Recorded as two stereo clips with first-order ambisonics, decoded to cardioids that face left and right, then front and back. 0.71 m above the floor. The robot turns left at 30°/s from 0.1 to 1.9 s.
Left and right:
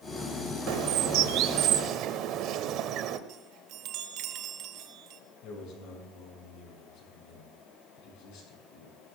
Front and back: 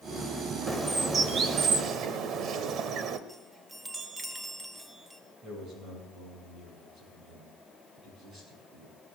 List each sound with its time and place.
0.7 s a bird: 95° right, 0.9 m; by 3.2 s 130° right, 0.9 m
3.3 s a chime: 95° right, 0.8 m
5.4 s a man speaking: 120° left, 7 m